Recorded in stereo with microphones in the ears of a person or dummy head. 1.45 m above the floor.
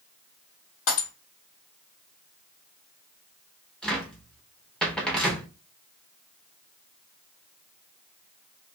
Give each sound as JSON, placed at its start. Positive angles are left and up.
{"t": 0.9, "sound": "breaking glass", "side_deg": 70, "distance_m": 2.0}
{"t": 3.8, "sound": "a cupboard door", "side_deg": 0, "distance_m": 0.8}